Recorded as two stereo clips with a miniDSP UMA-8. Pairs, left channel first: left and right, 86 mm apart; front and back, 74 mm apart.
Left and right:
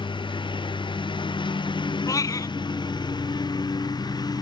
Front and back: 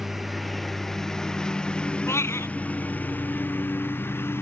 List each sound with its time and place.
0.0 s a lawn mower: 95° left; by 4.4 s 60° left
2.1 s a cat meowing: 50° left